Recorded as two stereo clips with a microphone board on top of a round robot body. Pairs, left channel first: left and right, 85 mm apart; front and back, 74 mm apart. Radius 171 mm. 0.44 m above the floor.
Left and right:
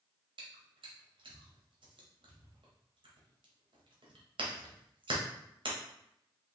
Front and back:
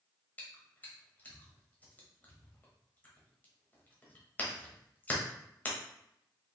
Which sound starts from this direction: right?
Chewing, at 0.4 s.